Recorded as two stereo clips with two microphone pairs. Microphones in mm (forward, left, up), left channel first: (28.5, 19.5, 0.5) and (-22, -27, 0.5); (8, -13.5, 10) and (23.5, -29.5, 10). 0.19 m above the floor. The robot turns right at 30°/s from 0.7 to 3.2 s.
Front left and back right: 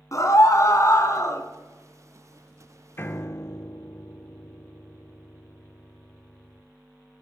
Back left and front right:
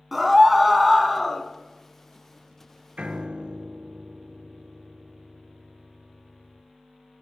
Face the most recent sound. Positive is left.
turn(degrees=-10)